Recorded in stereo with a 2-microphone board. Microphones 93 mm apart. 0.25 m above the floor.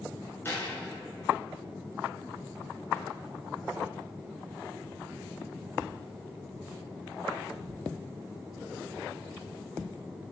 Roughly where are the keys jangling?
Left.